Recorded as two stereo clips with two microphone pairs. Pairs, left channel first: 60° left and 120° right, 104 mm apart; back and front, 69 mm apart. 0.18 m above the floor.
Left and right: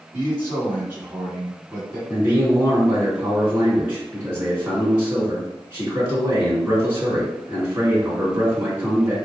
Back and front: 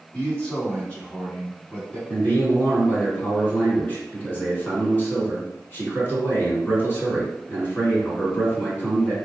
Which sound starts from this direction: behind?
A man speaking, at 2.1 s.